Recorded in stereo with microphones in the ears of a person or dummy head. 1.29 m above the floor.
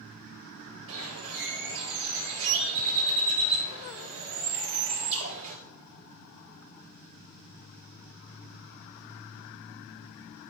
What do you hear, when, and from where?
0.9 s a bird: 75° right (ahead or behind), 6.5 m